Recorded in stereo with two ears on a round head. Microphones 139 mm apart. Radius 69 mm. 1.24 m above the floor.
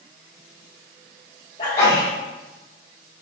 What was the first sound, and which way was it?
A sneeze, 50° left (ahead or behind).